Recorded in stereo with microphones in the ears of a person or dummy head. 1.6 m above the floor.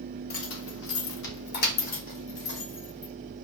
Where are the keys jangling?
60° left (ahead or behind), 1.8 m; by 3.1 s 25° left (ahead or behind), 4 m.